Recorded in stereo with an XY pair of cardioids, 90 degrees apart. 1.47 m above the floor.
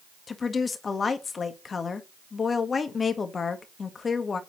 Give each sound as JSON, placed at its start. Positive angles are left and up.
{"t": 0.3, "sound": "a woman speaking", "azimuth_deg": 45, "distance_m": 1.7}